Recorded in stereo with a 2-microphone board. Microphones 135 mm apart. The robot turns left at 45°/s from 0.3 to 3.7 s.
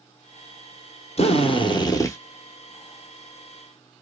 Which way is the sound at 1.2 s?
75° left.